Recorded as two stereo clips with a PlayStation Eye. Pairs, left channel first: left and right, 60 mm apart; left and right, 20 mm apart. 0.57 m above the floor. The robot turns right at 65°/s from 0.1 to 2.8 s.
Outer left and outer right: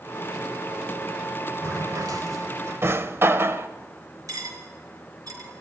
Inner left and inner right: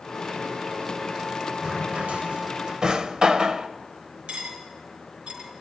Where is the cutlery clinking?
80° right, 4 m.